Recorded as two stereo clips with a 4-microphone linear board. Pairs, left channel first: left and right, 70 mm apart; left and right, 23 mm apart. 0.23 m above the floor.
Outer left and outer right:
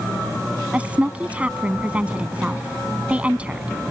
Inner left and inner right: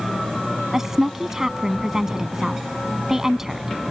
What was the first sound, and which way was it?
A woman speaking, 20° right (ahead or behind).